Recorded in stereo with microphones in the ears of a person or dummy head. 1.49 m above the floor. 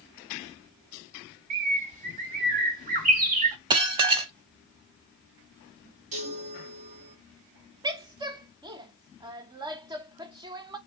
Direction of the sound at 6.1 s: 40° right (ahead or behind).